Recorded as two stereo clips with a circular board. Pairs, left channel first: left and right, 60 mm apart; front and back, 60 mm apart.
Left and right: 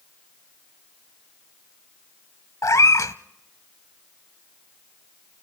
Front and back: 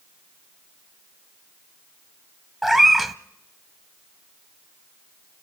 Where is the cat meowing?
90° left, 0.7 m.